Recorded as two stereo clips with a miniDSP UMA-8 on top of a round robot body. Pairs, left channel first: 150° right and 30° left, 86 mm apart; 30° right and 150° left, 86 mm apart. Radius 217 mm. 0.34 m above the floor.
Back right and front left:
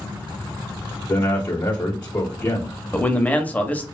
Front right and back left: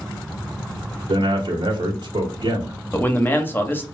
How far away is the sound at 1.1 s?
About 1.2 m.